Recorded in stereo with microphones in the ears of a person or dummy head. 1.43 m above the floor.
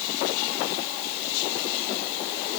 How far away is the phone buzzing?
I don't hear a phone buzzing.